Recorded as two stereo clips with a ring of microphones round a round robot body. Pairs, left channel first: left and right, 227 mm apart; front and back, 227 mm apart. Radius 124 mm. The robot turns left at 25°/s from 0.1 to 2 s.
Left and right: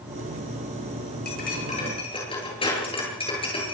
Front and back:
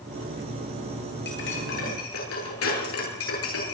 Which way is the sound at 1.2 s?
40° left.